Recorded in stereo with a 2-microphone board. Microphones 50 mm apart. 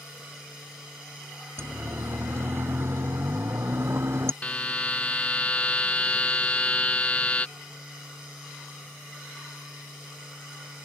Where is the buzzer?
30° left (ahead or behind).